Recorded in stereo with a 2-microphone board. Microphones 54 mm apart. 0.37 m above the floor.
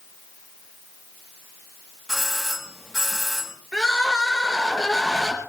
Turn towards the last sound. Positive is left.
turn(degrees=5)  # may be behind; listen again after turning